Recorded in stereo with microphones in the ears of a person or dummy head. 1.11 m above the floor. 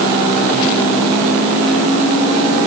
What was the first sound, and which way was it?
Only background noise.